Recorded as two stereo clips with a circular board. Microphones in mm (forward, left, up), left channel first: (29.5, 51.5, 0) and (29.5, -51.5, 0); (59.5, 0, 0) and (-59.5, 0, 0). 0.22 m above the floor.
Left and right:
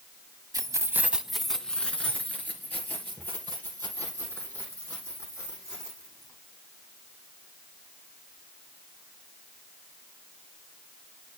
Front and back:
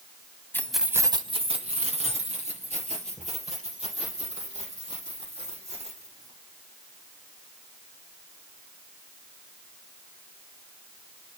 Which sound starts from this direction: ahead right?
Keys jangling, at 0.5 s.